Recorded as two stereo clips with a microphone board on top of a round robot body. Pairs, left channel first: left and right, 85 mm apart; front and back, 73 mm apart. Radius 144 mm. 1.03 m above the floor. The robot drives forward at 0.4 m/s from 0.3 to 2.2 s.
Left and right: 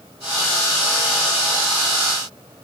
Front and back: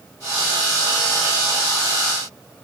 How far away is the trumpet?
I don't hear a trumpet.